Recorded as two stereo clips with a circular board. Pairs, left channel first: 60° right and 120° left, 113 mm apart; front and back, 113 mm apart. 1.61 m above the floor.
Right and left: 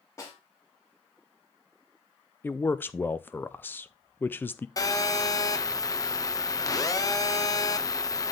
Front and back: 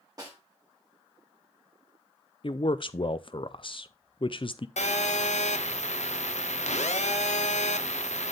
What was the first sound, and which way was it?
A snare drum, 125° right.